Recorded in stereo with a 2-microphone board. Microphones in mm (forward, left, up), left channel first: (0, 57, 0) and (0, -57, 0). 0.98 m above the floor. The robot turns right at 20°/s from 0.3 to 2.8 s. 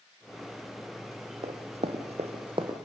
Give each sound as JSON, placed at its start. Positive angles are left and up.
{"t": 1.4, "sound": "running footsteps", "side_deg": -55, "distance_m": 2.0}